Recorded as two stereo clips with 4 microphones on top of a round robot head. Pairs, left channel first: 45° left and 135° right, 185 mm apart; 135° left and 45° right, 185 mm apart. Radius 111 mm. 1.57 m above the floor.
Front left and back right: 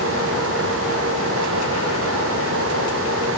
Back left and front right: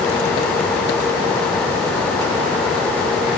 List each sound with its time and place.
Only background noise.